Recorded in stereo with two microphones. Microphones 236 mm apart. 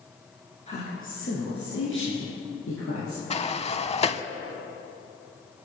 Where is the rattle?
No rattle in this recording.